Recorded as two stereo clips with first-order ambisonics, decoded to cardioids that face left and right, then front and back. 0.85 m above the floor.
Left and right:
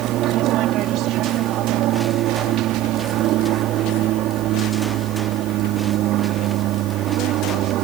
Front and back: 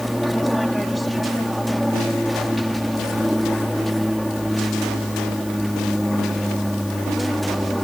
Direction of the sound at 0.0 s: 90° right.